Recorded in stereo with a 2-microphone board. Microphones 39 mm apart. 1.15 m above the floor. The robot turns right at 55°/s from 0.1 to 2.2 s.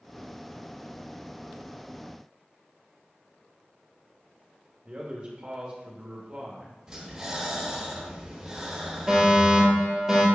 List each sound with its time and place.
4.8 s a man speaking: 25° right (ahead or behind), 1.5 m
6.9 s breathing: 15° right (ahead or behind), 2.5 m
9.1 s a fire alarm: centre (ahead or behind), 2.5 m